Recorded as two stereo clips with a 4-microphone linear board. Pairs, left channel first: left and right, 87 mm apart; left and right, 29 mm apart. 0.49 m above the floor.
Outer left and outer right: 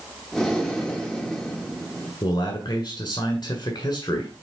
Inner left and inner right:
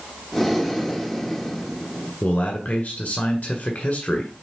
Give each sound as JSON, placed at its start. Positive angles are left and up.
{"t": 0.3, "sound": "breathing", "side_deg": 5, "distance_m": 1.5}
{"t": 2.2, "sound": "a man speaking", "side_deg": 55, "distance_m": 1.6}